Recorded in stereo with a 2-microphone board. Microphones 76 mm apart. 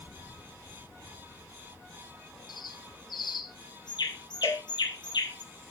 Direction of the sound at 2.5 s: 70° left (ahead or behind).